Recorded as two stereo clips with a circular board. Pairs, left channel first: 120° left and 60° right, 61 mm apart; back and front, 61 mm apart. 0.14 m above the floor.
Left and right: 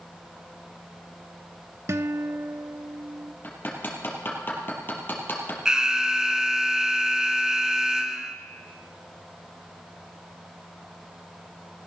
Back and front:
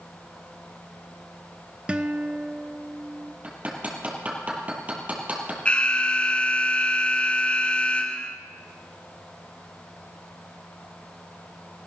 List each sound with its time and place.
1.9 s a guitar: 65° right, 0.6 m
3.4 s hammering: 65° left, 2.5 m
5.7 s an alarm: 130° right, 1.0 m